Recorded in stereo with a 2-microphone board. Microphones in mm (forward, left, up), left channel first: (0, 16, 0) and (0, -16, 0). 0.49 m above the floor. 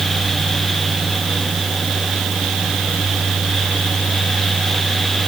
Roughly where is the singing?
No singing in this recording.